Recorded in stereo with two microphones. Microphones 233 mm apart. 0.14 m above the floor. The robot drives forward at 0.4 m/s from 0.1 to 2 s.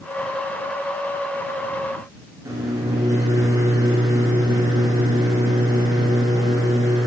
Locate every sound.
2.5 s a microwave: 15° right (ahead or behind), 1.3 m